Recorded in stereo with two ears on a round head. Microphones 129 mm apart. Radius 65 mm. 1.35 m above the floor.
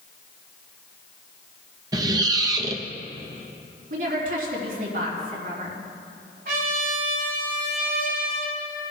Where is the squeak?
25° right (ahead or behind), 0.6 m.